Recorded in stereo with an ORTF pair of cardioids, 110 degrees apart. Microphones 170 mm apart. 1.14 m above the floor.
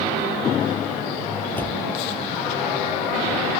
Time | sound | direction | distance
1.6 | a door slam | 10° left | ?